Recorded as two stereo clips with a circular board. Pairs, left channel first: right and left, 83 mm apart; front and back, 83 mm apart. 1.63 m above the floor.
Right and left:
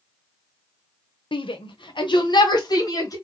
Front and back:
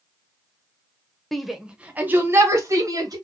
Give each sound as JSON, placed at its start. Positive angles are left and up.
{"t": 1.3, "sound": "a shout", "azimuth_deg": -85, "distance_m": 0.8}